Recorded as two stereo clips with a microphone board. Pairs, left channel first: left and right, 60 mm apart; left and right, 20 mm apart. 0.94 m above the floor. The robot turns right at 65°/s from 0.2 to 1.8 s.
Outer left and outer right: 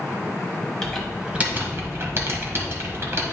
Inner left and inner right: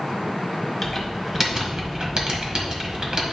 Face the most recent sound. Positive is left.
turn(degrees=-45)  # may be behind; listen again after turning